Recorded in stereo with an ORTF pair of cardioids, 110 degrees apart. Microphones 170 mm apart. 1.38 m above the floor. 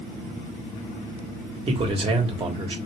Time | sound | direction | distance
1.7 | a man speaking | 30° right | 1.3 m